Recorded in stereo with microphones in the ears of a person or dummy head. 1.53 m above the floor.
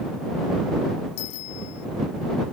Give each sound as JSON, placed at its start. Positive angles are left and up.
{"t": 1.2, "sound": "a bicycle bell", "side_deg": 85}